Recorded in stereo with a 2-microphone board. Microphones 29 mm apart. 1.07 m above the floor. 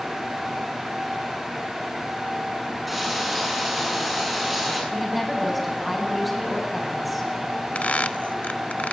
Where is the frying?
5° right (ahead or behind), 9.5 m.